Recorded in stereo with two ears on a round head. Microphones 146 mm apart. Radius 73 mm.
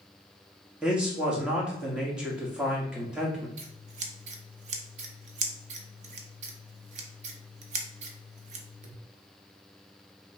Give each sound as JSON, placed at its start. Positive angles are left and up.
{"t": 0.8, "sound": "a man speaking", "side_deg": -5, "distance_m": 1.3}
{"t": 3.6, "sound": "scissors", "side_deg": -45, "distance_m": 0.7}